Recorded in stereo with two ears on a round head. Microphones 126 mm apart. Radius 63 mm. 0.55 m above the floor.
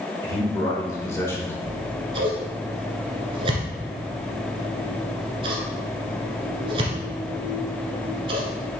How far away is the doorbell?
I don't hear a doorbell.